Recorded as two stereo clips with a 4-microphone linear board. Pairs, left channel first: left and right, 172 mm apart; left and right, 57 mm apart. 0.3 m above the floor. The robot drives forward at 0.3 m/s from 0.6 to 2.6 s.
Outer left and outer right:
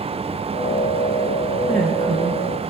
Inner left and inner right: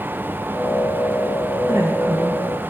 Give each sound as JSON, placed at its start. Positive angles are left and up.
{"t": 1.7, "sound": "a woman speaking", "side_deg": -60, "distance_m": 5.0}